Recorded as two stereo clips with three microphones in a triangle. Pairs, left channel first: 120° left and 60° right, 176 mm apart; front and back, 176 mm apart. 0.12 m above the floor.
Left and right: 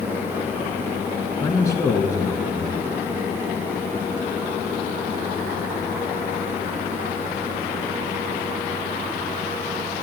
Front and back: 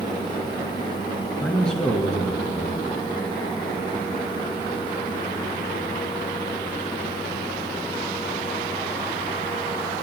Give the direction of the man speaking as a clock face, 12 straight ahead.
9 o'clock.